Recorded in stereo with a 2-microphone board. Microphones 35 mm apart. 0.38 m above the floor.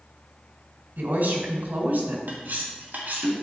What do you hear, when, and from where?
1.0 s a woman speaking: 70° right (ahead or behind), 2 m
2.3 s cutlery clinking: 70° right (ahead or behind), 1.6 m